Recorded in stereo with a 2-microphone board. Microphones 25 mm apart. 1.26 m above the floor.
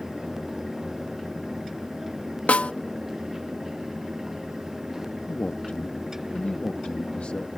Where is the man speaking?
70° left (ahead or behind).